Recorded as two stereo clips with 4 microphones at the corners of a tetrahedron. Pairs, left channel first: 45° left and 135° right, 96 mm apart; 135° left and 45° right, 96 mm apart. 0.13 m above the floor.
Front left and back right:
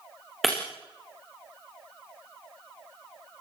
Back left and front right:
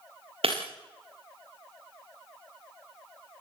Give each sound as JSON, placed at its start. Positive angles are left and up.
{"t": 0.4, "sound": "breaking glass", "azimuth_deg": -45, "distance_m": 8.0}